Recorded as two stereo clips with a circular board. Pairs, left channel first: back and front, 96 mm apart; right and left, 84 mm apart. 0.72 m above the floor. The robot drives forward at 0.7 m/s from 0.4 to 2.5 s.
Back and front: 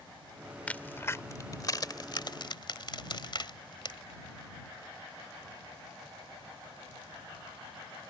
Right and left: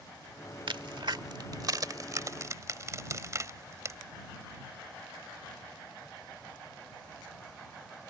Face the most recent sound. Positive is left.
turn(degrees=145)